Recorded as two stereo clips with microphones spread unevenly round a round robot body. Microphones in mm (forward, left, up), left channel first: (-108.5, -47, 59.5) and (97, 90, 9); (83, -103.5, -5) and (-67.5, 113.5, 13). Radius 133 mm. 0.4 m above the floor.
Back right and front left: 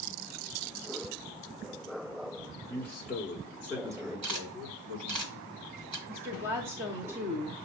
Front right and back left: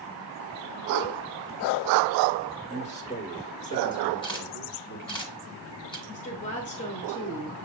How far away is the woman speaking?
About 1.1 m.